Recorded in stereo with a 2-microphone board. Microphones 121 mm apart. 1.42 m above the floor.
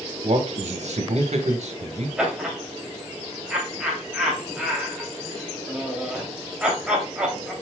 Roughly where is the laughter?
Centre.